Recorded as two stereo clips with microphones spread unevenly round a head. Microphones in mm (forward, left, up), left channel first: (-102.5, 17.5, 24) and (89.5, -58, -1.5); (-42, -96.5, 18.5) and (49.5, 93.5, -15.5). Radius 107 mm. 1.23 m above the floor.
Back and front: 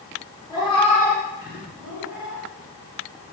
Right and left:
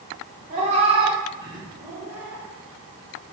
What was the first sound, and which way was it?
A cat meowing, 110° left.